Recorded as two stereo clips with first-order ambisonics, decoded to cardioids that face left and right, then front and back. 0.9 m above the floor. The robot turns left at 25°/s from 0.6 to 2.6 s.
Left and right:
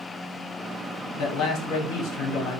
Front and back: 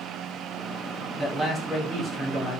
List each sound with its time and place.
1.2 s a man speaking: 110° left, 1.3 m; by 2.6 s 75° left, 1.3 m